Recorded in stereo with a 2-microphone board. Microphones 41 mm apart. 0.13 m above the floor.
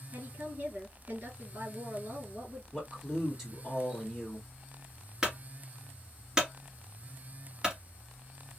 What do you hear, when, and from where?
0.1 s a woman speaking: 50° right (ahead or behind), 2.5 m
2.7 s a man speaking: 5° right (ahead or behind), 1.7 m
5.2 s a clunk: 15° right (ahead or behind), 1.8 m